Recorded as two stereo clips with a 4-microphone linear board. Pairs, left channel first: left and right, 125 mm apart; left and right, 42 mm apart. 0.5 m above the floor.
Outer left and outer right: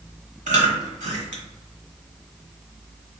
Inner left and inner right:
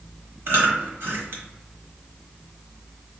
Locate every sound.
0.5 s chewing: 70° right (ahead or behind), 1.0 m